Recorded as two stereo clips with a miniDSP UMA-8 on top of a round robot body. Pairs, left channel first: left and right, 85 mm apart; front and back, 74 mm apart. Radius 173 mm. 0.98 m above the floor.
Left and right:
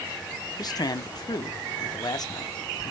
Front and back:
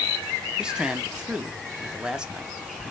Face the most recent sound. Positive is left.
turn(degrees=105)